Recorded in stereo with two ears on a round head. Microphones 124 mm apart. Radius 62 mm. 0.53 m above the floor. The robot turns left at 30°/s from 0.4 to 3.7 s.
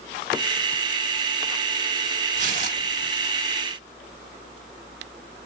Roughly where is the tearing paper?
Right.